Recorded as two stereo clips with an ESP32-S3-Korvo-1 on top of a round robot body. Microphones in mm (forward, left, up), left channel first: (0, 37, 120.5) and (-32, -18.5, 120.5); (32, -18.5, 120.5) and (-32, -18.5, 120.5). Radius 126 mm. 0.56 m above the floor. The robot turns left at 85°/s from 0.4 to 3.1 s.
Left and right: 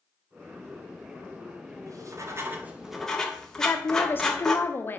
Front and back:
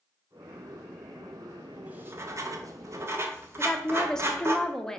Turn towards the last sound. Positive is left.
turn(degrees=75)